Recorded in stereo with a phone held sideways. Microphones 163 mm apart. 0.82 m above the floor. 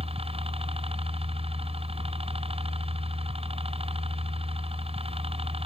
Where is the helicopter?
35° right (ahead or behind).